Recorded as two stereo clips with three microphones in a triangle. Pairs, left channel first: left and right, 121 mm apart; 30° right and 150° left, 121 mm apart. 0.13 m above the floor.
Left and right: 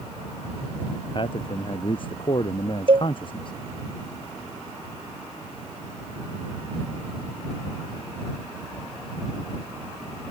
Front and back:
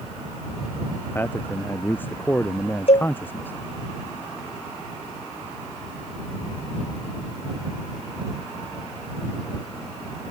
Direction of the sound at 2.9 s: 50° right.